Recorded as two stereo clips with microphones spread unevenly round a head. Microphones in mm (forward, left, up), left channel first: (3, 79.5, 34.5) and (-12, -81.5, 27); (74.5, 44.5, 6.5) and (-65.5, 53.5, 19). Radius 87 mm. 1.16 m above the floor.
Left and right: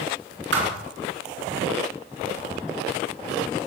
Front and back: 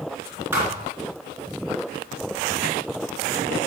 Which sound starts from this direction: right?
A thud, at 0.5 s.